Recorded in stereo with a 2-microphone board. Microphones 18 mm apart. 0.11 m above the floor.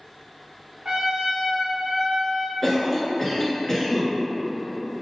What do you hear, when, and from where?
0.8 s a trumpet: 40° right (ahead or behind), 0.6 m
2.6 s a cough: 25° left (ahead or behind), 1.2 m